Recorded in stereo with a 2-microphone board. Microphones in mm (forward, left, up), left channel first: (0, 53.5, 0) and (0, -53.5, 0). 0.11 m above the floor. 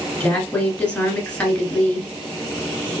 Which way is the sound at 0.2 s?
10° left (ahead or behind).